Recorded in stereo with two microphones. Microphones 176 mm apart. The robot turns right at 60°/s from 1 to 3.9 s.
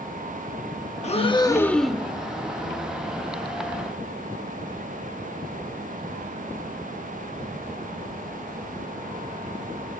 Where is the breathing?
130° left, 0.9 m; by 2.1 s 170° right, 0.9 m.